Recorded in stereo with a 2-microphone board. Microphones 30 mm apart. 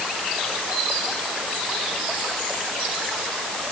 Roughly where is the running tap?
I don't hear a running tap.